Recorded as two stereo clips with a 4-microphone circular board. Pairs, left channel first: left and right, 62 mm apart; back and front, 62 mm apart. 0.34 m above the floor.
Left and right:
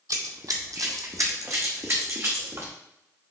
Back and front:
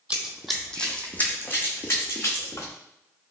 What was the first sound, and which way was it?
Running footsteps, 70° right.